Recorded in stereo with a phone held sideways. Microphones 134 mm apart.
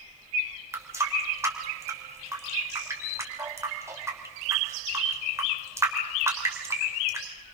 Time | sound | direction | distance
0.7 | a running tap | 20° right (ahead or behind) | 3 m